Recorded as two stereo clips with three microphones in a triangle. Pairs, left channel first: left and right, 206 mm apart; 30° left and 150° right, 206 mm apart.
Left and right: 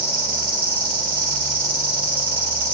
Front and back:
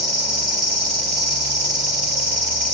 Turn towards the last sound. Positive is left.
turn(degrees=-20)